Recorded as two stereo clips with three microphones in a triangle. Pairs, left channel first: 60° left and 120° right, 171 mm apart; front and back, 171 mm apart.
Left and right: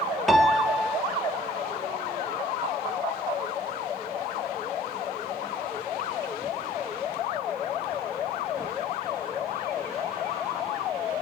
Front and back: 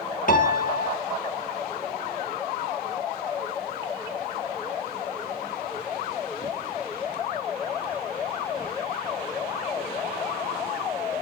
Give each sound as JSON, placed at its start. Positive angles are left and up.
{"t": 0.3, "sound": "a piano", "azimuth_deg": -30, "distance_m": 2.5}